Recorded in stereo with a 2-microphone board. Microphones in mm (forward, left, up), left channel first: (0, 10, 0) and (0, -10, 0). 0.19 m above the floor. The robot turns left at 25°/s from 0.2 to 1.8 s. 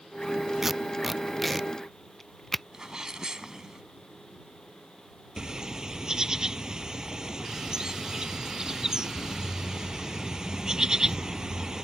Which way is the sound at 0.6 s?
15° right (ahead or behind).